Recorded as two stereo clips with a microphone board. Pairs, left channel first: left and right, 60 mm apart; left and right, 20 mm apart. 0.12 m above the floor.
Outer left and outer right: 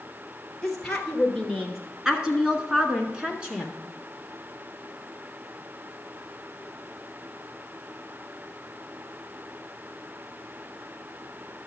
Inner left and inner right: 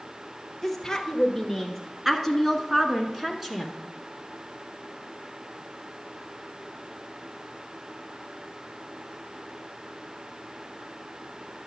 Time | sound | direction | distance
0.6 | a woman speaking | centre (ahead or behind) | 1.7 m